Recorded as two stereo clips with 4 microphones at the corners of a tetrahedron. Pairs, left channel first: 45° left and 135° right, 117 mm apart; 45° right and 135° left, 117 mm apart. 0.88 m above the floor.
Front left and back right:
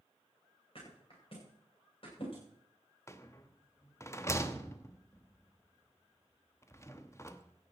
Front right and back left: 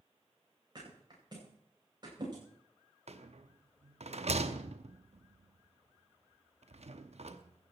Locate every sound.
0.8 s a thud: 85° left, 9.5 m
3.1 s a rattle: 110° left, 0.8 m